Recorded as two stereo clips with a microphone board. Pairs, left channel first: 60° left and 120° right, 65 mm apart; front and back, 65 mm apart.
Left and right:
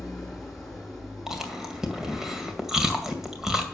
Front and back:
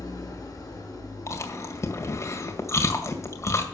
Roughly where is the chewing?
Ahead right.